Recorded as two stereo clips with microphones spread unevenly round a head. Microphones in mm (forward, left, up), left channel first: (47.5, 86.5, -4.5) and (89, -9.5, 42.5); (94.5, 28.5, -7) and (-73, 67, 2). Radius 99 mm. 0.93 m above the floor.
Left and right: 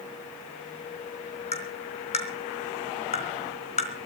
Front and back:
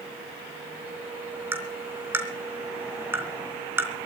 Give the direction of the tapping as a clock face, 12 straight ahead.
9 o'clock.